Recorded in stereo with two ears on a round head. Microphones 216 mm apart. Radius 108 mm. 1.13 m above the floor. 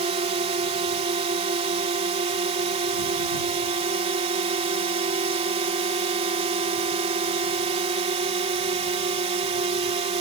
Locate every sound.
0.0 s a drone: 25° right (ahead or behind)